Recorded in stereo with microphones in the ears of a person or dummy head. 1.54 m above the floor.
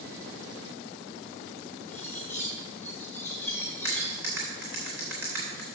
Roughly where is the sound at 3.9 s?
Centre.